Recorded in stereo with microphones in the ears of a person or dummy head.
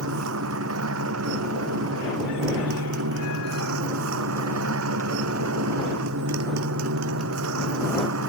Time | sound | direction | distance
0.0 | a motorcycle | 85° right | ?